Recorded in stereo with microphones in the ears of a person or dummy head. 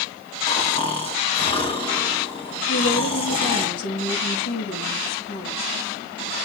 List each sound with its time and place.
0.5 s snoring: 25° left (ahead or behind), 2 m
2.7 s a woman speaking: 80° left, 3.5 m